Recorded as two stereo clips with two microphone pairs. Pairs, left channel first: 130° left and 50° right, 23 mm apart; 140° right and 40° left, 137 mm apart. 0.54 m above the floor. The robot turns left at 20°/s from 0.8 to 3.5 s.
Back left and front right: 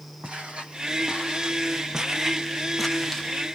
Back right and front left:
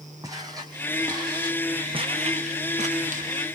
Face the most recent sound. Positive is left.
turn(degrees=40)